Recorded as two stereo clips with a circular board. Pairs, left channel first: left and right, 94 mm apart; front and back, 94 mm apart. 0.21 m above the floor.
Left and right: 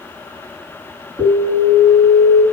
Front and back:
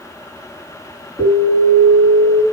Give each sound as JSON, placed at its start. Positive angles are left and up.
{"t": 1.2, "sound": "an alarm", "azimuth_deg": -80, "distance_m": 2.5}